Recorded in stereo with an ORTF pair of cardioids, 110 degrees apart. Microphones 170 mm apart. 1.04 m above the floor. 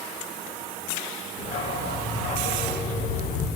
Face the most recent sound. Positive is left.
turn(degrees=60)